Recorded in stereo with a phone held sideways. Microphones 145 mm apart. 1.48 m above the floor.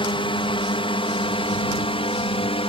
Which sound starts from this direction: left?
A drone, at 0.0 s.